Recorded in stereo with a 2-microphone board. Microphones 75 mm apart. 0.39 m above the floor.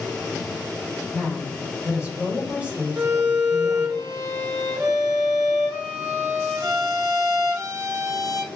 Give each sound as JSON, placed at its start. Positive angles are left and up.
{"t": 1.1, "sound": "a woman speaking", "side_deg": -15, "distance_m": 1.2}
{"t": 3.0, "sound": "a violin", "side_deg": -60, "distance_m": 1.1}